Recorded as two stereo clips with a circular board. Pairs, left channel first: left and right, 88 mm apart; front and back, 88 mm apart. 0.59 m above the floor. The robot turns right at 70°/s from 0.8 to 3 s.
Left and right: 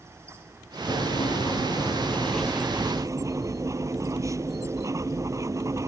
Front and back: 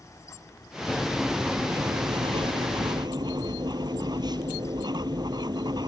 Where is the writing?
70° left; by 5.9 s 145° right.